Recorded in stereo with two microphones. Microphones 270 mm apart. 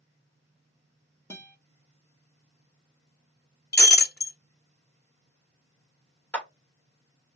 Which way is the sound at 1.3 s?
10° left (ahead or behind).